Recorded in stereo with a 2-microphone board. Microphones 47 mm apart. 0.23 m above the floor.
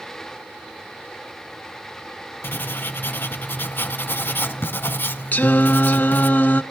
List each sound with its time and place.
2.4 s writing: 50° left (ahead or behind), 2 m
5.3 s singing: 40° left (ahead or behind), 1.2 m